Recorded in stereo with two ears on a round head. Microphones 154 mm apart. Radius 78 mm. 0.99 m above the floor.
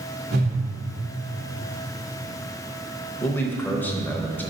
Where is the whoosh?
65° right (ahead or behind), 1.6 m.